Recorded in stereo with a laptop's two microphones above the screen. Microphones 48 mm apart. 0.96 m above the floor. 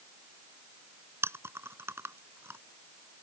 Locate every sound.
1.2 s chewing: 65° right (ahead or behind)